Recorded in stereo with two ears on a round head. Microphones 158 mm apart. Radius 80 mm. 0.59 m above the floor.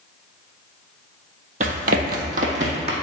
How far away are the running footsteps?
About 1.0 m.